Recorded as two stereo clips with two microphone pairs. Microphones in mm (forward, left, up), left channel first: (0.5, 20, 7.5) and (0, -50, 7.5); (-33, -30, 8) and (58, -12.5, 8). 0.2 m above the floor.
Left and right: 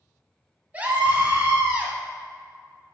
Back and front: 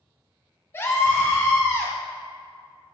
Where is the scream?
135° right, 1.5 m.